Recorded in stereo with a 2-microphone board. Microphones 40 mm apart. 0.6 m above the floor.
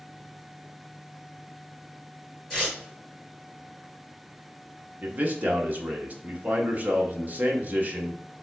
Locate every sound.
2.5 s tearing paper: 10° left (ahead or behind), 2.5 m
5.0 s a man speaking: 45° right (ahead or behind), 1.1 m